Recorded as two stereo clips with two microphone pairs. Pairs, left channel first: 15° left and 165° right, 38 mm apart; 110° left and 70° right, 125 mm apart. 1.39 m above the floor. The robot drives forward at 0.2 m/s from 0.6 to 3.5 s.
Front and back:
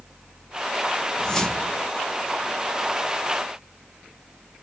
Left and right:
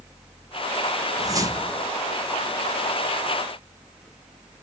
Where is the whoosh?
35° right, 0.6 m; by 1.9 s 55° right, 0.5 m.